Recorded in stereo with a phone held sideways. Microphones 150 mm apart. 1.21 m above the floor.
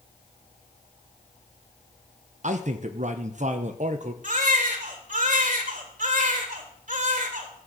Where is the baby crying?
60° right (ahead or behind), 1.7 m.